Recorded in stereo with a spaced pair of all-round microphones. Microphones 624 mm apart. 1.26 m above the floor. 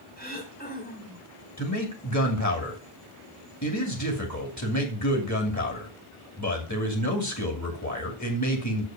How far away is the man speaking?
About 2.5 m.